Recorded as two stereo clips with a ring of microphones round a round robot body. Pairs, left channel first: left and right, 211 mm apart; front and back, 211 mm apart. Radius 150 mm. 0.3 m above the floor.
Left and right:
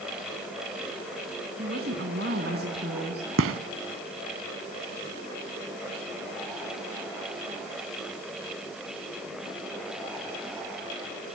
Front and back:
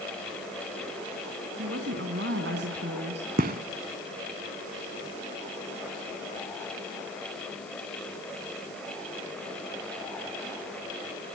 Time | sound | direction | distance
1.6 | a woman speaking | 140° right | 3.5 m
3.4 | a gunshot | 120° right | 1.0 m